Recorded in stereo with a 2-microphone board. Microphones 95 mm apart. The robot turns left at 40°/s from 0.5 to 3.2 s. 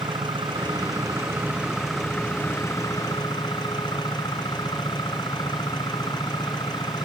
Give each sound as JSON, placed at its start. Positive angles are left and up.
{"t": 0.0, "sound": "an engine running", "azimuth_deg": -125}